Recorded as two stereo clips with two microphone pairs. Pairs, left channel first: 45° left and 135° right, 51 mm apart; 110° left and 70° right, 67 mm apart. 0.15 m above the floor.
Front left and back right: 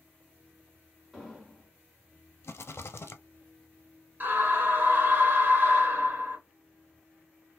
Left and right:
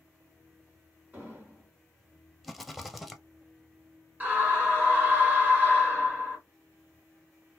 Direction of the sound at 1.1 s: 50° right.